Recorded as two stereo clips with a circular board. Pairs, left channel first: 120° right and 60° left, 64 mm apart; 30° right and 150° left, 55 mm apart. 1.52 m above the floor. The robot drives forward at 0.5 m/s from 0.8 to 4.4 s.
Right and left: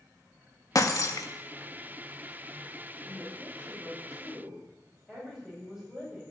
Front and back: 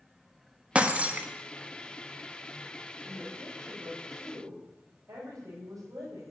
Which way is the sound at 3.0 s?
150° left.